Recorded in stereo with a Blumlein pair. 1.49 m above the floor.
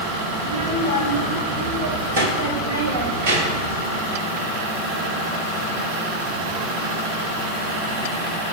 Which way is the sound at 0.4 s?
35° right.